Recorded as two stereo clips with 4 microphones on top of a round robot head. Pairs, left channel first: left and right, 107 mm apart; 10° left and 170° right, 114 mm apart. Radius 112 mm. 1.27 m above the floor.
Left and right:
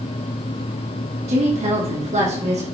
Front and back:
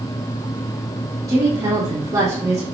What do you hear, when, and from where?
1.3 s a woman speaking: 105° right, 3 m